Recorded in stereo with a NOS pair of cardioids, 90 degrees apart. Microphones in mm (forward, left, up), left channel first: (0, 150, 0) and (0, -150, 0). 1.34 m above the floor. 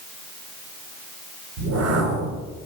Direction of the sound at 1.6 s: 60° right.